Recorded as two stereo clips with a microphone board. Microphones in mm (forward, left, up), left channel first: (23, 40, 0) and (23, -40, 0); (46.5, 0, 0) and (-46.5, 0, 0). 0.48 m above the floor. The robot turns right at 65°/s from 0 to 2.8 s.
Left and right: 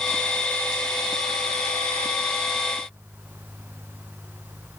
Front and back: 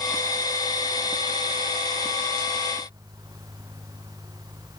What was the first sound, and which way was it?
Only background noise.